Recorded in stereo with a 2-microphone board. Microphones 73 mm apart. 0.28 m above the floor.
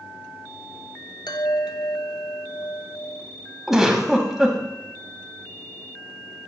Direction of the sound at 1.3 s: 75° left (ahead or behind).